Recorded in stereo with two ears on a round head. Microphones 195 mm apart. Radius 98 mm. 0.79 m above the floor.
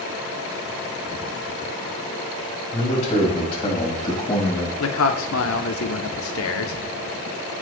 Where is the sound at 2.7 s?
30° left (ahead or behind), 4.5 m; by 4.7 s 15° left (ahead or behind), 5 m.